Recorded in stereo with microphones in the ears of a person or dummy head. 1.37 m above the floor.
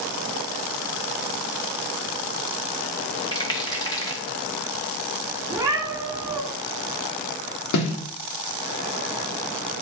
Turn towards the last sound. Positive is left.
turn(degrees=85)